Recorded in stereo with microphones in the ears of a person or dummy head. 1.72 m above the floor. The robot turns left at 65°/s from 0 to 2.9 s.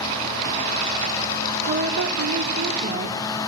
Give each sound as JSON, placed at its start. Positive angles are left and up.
{"t": 1.7, "sound": "a woman speaking", "azimuth_deg": -60, "distance_m": 1.9}